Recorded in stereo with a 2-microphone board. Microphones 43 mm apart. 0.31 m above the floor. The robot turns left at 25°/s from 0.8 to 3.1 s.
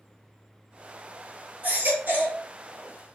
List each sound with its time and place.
1.6 s a baby crying: 40° right (ahead or behind), 2.5 m; by 2.4 s 55° right (ahead or behind), 2.5 m